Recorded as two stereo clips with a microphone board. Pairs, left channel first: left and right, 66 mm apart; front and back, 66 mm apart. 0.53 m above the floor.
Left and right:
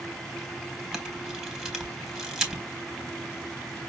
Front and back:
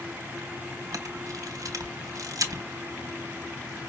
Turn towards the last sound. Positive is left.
turn(degrees=-170)